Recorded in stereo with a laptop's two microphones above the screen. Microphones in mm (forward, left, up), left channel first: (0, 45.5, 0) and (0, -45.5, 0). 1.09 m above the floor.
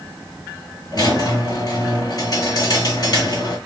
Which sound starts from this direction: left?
A squeak, at 0.9 s.